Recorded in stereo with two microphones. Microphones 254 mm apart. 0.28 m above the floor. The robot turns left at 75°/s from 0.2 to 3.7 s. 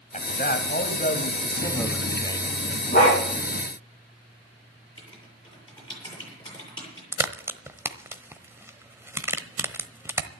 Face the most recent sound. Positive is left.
turn(degrees=-10)  # may be behind; listen again after turning